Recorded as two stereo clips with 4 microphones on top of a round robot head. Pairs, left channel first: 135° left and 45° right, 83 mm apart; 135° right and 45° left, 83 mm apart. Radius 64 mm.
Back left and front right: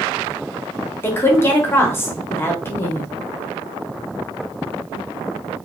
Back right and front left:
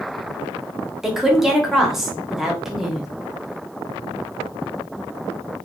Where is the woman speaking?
125° left, 0.8 m.